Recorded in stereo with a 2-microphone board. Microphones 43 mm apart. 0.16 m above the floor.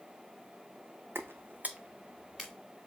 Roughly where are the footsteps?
Right.